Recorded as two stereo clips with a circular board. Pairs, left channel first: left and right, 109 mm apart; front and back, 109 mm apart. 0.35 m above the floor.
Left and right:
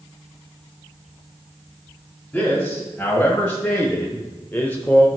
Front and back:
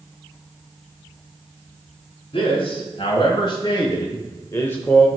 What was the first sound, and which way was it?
A man speaking, 10° left.